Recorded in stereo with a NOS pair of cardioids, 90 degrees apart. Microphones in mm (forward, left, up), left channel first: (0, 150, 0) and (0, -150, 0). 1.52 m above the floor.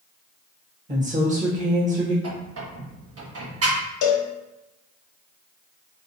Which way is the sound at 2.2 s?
50° right.